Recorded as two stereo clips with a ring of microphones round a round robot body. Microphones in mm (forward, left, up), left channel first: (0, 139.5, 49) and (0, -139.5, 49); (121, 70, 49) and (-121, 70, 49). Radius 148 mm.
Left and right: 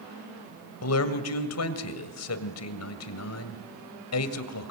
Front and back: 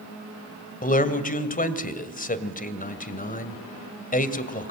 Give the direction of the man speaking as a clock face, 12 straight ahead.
10 o'clock.